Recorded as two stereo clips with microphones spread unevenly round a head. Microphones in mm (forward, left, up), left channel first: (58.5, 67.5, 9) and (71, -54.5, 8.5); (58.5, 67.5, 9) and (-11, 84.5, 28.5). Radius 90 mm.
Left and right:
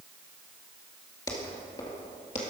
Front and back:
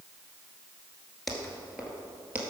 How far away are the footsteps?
About 1.5 m.